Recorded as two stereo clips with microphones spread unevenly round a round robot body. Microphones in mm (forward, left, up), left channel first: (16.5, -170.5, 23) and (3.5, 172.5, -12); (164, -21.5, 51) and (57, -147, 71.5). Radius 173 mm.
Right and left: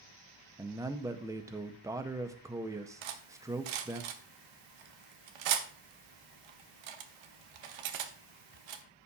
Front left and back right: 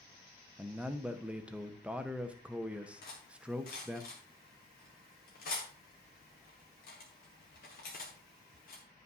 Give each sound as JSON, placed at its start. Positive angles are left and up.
{"t": 0.6, "sound": "a man speaking", "azimuth_deg": 140, "distance_m": 0.6}
{"t": 3.0, "sound": "cutlery clinking", "azimuth_deg": 105, "distance_m": 1.0}